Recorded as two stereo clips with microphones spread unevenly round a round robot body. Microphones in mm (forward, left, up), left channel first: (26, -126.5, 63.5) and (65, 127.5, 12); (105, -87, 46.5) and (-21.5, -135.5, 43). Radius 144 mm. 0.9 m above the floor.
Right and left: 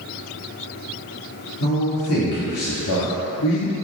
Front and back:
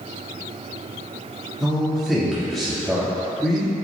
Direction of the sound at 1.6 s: 65° right.